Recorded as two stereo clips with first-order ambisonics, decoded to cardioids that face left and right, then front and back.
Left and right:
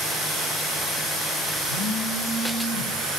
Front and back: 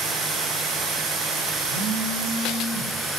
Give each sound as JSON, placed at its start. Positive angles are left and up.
{"t": 1.7, "sound": "a phone buzzing", "azimuth_deg": -140, "distance_m": 2.0}